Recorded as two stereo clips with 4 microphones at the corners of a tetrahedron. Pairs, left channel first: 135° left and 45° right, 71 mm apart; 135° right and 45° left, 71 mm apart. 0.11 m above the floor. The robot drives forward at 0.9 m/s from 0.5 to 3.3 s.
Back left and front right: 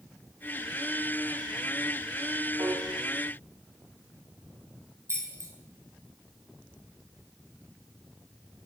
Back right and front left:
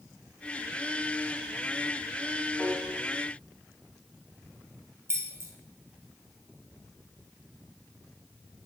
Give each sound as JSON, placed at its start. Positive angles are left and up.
{"t": 2.6, "sound": "a piano", "azimuth_deg": -45, "distance_m": 2.5}
{"t": 5.1, "sound": "keys jangling", "azimuth_deg": -5, "distance_m": 2.0}